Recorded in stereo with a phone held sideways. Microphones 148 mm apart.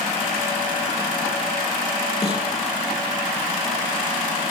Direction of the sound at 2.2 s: 40° left (ahead or behind).